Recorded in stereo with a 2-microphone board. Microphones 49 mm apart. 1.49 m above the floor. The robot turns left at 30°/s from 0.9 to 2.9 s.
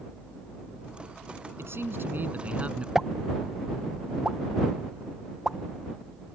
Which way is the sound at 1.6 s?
120° right.